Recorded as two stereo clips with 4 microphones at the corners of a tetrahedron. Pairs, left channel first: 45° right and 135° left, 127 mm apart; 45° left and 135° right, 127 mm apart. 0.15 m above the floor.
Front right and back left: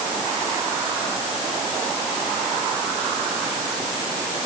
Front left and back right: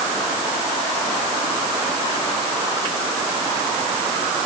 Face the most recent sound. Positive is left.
No sound to turn to.